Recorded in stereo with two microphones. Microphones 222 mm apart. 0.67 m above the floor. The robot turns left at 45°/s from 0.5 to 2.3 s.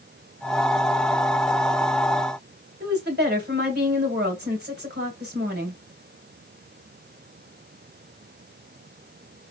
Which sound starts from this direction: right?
A woman speaking, at 2.8 s.